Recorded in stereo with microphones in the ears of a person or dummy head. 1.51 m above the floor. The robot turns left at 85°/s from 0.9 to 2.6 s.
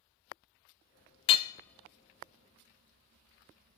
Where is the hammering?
35° left (ahead or behind), 0.5 m; by 3.8 s 45° right (ahead or behind), 0.5 m.